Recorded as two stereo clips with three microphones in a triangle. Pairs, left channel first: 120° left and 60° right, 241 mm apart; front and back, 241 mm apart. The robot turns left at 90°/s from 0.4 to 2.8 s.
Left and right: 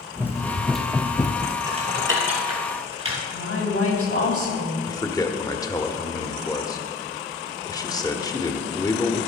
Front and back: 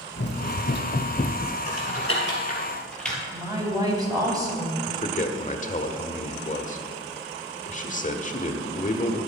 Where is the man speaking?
45° left, 1.1 m.